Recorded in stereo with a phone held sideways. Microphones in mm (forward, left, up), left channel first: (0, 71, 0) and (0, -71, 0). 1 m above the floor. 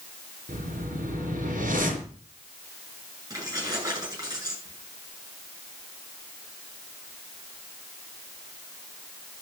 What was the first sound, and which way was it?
A whoosh, 70° right (ahead or behind).